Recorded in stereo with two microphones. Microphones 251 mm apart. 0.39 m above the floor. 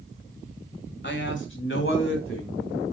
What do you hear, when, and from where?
1.0 s a man speaking: 45° left (ahead or behind), 1.8 m; by 2.6 s 55° left (ahead or behind), 3 m